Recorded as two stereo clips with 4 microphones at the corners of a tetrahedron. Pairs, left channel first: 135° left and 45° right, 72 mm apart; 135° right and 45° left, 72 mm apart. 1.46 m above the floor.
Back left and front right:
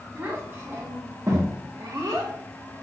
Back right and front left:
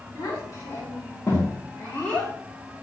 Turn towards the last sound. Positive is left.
turn(degrees=-55)